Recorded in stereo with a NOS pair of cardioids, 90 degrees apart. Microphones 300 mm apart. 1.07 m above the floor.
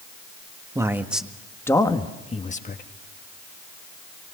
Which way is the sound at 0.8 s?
10° right.